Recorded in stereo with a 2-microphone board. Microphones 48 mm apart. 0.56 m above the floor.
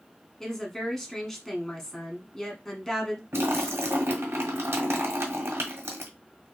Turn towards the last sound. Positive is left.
turn(degrees=-60)  # may be behind; listen again after turning